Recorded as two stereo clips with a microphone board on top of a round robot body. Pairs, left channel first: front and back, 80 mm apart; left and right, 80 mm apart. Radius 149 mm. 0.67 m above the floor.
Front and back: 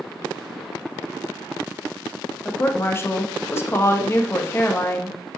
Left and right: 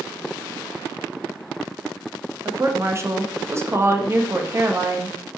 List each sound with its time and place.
2.5 s a woman speaking: 50° right, 1.4 m